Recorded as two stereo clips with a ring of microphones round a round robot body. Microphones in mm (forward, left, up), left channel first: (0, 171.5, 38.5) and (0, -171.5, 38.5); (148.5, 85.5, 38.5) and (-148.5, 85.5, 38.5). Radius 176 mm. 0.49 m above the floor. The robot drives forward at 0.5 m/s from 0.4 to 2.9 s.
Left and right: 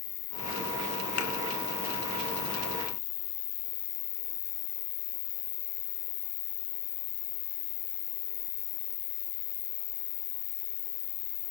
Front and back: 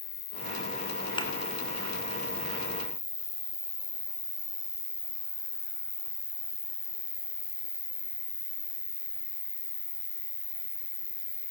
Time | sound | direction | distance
0.0 | an insect | 45° left | 3 m
1.2 | a thud | 75° left | 4.5 m